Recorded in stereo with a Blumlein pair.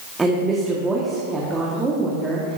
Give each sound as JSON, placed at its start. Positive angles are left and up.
{"t": 0.2, "sound": "a woman speaking", "azimuth_deg": -10, "distance_m": 1.6}